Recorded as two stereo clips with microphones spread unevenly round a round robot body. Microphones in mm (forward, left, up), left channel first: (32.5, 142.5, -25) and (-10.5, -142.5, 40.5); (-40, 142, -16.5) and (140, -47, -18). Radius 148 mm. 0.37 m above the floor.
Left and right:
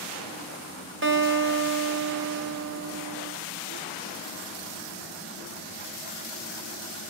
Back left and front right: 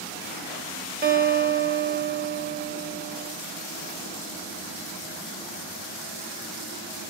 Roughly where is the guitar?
Ahead right.